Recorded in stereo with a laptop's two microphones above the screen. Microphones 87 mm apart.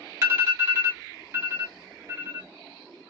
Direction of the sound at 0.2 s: 35° right (ahead or behind).